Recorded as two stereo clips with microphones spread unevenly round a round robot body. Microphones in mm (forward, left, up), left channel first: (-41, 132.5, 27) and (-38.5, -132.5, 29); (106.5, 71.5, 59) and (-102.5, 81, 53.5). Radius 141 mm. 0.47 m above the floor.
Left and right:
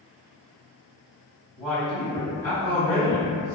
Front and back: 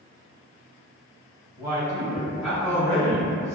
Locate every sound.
1.6 s a man speaking: 175° right, 1.3 m; by 3.6 s 55° left, 1.4 m